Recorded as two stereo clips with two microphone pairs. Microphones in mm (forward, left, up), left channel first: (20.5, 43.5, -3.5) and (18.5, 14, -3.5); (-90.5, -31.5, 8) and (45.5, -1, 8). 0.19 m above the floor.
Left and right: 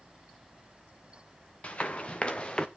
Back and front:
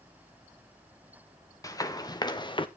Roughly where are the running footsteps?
Behind left.